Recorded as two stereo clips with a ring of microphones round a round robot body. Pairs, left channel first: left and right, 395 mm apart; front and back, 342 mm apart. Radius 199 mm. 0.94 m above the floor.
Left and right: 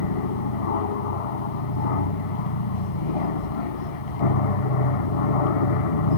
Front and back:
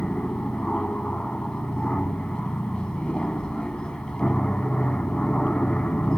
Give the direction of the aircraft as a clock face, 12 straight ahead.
9 o'clock.